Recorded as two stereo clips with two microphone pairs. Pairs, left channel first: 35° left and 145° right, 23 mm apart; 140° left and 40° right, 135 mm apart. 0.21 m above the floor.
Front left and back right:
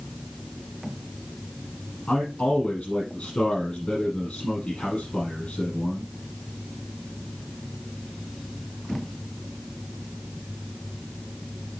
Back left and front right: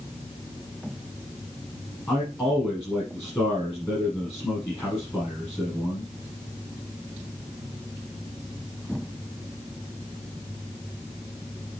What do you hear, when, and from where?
2.1 s a man speaking: 65° left, 6 m